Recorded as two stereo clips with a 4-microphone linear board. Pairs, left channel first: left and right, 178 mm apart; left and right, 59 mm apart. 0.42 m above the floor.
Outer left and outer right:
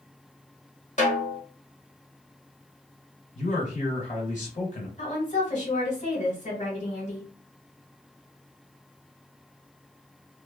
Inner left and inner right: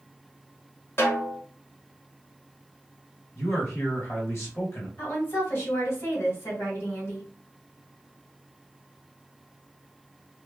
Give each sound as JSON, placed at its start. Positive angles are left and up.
{"t": 1.0, "sound": "a snare drum", "side_deg": 45, "distance_m": 1.0}
{"t": 3.4, "sound": "a man speaking", "side_deg": 45, "distance_m": 1.4}
{"t": 5.0, "sound": "a woman speaking", "side_deg": 45, "distance_m": 1.8}